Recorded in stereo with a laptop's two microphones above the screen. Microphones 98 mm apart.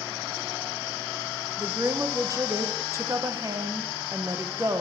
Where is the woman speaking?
30° right (ahead or behind), 0.7 m.